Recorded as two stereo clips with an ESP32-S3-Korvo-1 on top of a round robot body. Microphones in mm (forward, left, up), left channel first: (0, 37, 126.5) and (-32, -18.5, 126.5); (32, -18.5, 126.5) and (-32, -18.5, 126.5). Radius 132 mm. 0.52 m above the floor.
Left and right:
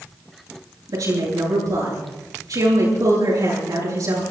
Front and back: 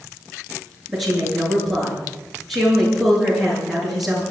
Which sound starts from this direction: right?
A woman speaking, at 0.9 s.